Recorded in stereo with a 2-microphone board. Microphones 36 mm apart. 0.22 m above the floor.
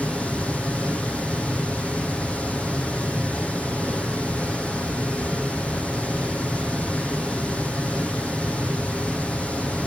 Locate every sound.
0.0 s running water: 35° left (ahead or behind), 6 m